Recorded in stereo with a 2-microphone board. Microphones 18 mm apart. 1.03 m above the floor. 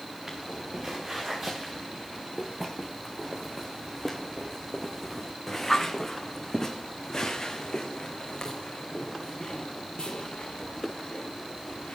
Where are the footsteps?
25° right (ahead or behind), 5 m; by 12.0 s 70° left (ahead or behind), 4.5 m.